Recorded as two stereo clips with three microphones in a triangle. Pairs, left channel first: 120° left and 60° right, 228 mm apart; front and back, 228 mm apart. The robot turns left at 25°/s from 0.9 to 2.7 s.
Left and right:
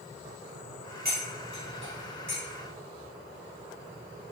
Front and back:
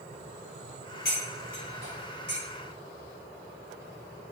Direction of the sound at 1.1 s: 30° right.